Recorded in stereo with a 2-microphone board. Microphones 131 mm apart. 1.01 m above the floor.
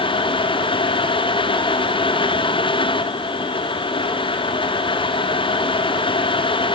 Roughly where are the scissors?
I don't hear scissors.